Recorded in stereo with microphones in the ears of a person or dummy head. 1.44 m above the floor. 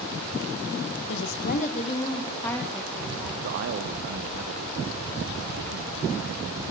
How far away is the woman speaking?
About 1.3 m.